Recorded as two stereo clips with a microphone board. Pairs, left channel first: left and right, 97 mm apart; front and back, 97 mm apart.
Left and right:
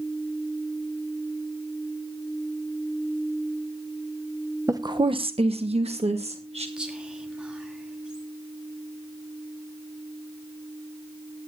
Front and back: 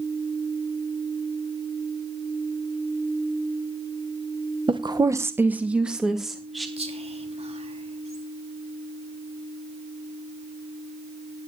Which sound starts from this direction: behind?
Whispering, at 6.8 s.